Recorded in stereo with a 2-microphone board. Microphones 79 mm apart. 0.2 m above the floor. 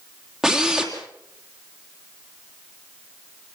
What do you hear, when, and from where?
0.4 s a drill: 5° right (ahead or behind), 3 m